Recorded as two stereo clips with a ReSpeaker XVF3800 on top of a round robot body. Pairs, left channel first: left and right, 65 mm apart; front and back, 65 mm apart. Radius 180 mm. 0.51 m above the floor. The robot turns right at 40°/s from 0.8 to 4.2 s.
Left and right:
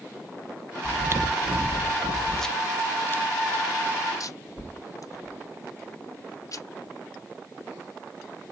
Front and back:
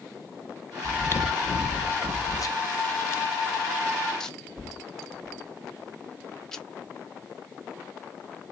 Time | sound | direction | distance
0.8 | chewing | 55° right | 0.7 m